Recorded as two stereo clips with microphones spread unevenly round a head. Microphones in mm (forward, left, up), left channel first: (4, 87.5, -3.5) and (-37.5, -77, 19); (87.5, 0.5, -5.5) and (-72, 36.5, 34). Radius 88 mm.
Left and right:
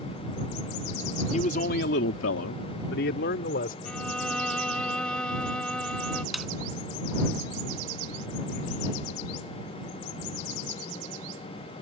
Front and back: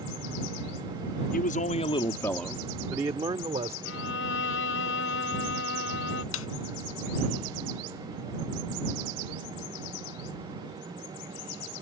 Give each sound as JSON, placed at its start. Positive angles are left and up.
{"t": 1.3, "sound": "a man speaking", "azimuth_deg": 20}
{"t": 3.9, "sound": "a violin", "azimuth_deg": -10}
{"t": 6.3, "sound": "a snare drum", "azimuth_deg": -20}